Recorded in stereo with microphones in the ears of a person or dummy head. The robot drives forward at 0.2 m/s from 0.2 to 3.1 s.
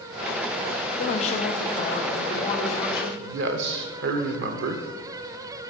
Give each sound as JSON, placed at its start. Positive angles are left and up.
{"t": 1.0, "sound": "a woman speaking", "side_deg": 40, "distance_m": 0.5}
{"t": 3.2, "sound": "a man speaking", "side_deg": -70, "distance_m": 0.7}